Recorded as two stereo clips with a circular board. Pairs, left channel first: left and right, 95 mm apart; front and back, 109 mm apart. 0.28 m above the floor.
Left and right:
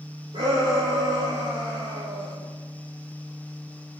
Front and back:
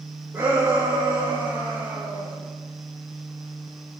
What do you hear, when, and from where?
0.3 s a shout: 110° right, 8 m